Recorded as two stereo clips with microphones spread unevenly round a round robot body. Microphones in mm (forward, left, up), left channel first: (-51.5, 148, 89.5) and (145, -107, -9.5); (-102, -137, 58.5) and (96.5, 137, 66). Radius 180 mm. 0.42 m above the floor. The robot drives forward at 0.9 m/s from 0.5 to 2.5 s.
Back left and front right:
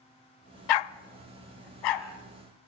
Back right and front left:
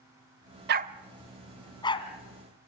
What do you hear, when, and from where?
0.7 s a dog barking: 115° left, 0.6 m; by 2.1 s 160° left, 1.6 m